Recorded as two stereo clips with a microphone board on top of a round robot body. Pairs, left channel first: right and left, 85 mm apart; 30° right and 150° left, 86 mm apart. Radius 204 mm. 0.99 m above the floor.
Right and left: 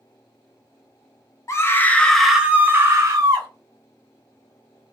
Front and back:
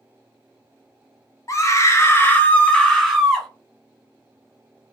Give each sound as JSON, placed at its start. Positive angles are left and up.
{"t": 1.5, "sound": "a scream", "azimuth_deg": -55, "distance_m": 0.9}